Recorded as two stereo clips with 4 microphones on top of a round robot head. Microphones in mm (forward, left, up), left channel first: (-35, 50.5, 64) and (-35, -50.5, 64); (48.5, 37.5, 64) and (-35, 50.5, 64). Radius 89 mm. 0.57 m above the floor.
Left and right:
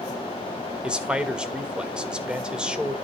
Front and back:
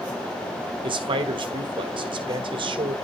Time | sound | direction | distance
0.8 | a man speaking | 170° right | 1.7 m